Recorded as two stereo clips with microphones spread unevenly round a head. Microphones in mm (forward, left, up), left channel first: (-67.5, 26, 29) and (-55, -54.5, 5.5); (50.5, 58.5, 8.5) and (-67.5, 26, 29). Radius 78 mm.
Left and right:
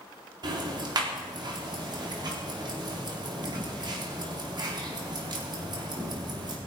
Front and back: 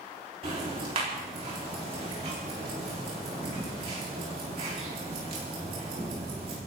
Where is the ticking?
110° right, 4.5 m.